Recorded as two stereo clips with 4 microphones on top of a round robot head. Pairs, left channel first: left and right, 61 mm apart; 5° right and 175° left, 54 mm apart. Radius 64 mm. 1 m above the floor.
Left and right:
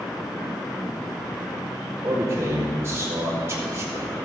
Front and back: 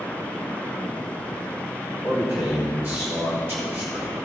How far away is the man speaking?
About 3 m.